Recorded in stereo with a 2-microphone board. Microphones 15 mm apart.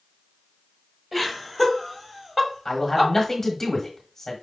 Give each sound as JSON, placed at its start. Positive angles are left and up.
{"t": 1.1, "sound": "laughter", "side_deg": -10, "distance_m": 1.3}
{"t": 2.6, "sound": "a man speaking", "side_deg": 25, "distance_m": 1.3}